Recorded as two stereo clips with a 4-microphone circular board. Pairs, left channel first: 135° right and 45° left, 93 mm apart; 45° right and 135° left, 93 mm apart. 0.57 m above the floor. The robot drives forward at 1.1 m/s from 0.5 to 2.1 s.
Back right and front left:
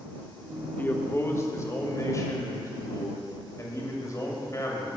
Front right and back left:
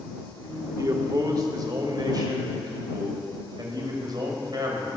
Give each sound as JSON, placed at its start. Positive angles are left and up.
{"t": 0.8, "sound": "a man speaking", "azimuth_deg": 165, "distance_m": 1.0}